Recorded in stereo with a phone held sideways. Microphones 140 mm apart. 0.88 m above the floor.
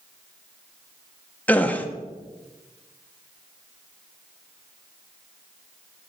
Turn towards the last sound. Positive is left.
turn(degrees=10)  # may be behind; listen again after turning